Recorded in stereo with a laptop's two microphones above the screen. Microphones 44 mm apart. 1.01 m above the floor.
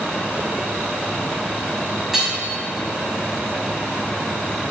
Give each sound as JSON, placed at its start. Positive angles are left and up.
{"t": 2.1, "sound": "hammering", "side_deg": -5, "distance_m": 3.0}